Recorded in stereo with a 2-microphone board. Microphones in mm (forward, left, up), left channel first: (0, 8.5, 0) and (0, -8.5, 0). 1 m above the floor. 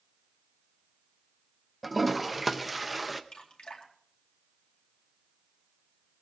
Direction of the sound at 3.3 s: 65° left (ahead or behind).